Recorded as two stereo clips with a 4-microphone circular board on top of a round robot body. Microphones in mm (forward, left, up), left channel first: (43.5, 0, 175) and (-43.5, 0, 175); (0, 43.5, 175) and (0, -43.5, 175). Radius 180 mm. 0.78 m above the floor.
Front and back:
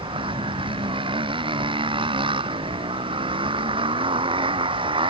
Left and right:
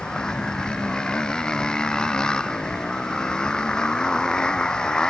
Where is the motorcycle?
170° left.